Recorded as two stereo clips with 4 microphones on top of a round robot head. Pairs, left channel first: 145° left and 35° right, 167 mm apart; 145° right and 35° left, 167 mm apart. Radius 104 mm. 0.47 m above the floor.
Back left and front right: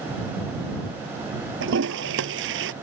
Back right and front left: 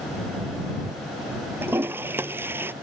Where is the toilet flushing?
45° right.